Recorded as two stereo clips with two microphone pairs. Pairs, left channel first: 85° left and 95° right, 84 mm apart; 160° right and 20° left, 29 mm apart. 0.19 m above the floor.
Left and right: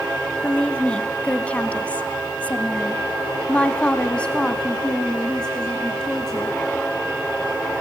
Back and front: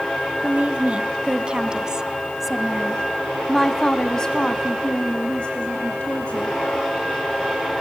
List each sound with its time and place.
0.4 s a woman speaking: 15° left, 1.9 m; by 6.6 s 170° left, 2.5 m